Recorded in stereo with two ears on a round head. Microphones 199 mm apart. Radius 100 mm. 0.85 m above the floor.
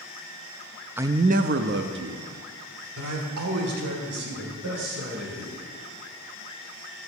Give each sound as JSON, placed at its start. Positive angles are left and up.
{"t": 1.0, "sound": "a man speaking", "side_deg": -10, "distance_m": 0.5}